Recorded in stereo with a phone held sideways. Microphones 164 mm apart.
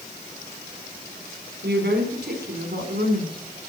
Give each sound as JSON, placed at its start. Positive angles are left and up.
{"t": 1.6, "sound": "a woman speaking", "side_deg": -80, "distance_m": 3.5}